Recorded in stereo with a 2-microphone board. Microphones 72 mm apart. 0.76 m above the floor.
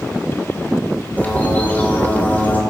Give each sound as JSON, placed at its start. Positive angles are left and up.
{"t": 1.2, "sound": "a bird", "side_deg": 25, "distance_m": 2.5}